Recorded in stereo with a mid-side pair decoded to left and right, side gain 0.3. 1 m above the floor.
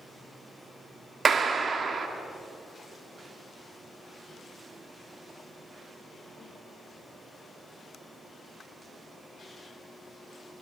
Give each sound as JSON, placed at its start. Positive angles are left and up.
{"t": 1.2, "sound": "a clap", "azimuth_deg": -65, "distance_m": 2.5}